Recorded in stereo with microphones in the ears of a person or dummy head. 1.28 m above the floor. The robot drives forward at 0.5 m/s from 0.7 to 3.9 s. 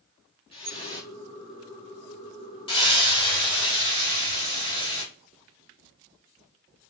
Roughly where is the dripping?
Left.